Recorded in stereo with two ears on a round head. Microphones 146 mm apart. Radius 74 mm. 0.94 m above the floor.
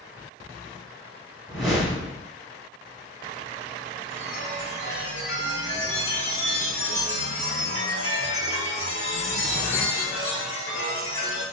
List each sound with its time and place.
1.5 s a whoosh: centre (ahead or behind), 1.6 m
4.1 s a chime: 45° left (ahead or behind), 1.6 m